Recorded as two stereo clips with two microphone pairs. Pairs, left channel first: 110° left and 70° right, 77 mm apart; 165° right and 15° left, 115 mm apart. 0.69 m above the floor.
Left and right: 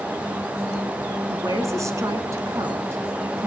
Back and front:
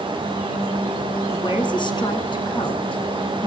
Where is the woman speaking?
120° right, 7.5 m; by 3.5 s 125° right, 5 m.